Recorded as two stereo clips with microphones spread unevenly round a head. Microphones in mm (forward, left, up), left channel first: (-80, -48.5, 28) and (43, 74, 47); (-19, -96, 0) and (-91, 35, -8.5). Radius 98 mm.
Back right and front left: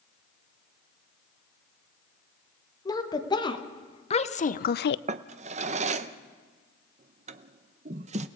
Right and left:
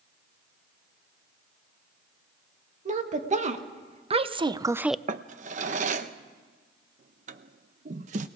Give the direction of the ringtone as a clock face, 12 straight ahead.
I don't hear a ringtone.